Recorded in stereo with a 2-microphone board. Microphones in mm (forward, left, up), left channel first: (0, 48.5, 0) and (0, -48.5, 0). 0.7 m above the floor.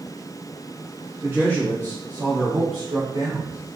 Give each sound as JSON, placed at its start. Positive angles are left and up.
{"t": 1.2, "sound": "a man speaking", "side_deg": -20, "distance_m": 1.1}